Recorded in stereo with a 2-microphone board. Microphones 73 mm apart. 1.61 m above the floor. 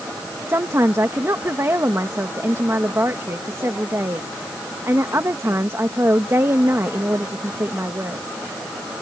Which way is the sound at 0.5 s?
40° right (ahead or behind).